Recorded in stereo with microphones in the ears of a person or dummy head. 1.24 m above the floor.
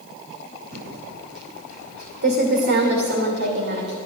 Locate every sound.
0.7 s typing on a keyboard: 60° right (ahead or behind), 2.5 m